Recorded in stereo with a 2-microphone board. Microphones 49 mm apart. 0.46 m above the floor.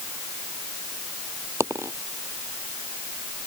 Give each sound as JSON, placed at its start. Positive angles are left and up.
{"t": 1.6, "sound": "a dropped coin", "side_deg": -90}